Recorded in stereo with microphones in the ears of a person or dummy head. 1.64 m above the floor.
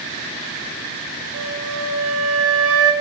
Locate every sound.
1.3 s a flute: 75° right (ahead or behind), 0.7 m